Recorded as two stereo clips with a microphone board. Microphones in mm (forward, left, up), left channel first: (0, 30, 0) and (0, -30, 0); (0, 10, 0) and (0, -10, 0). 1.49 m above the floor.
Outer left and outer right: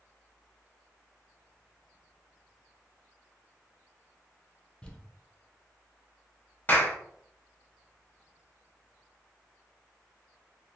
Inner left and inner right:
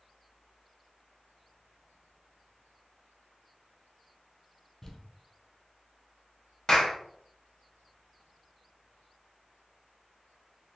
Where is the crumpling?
15° left (ahead or behind), 0.6 m.